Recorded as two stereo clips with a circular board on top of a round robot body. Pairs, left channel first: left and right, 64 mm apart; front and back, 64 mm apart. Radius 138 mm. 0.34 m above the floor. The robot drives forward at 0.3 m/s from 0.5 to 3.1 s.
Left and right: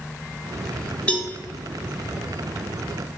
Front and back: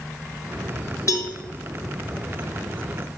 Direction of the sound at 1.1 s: 20° left.